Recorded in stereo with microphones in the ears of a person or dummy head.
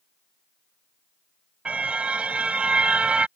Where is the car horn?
10° right (ahead or behind).